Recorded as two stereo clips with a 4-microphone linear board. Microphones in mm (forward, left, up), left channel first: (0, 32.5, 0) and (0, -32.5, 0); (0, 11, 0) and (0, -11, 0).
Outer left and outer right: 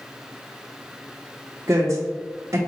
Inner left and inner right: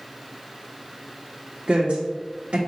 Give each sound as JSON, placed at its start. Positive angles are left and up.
{"t": 1.7, "sound": "a woman speaking", "side_deg": -50, "distance_m": 0.6}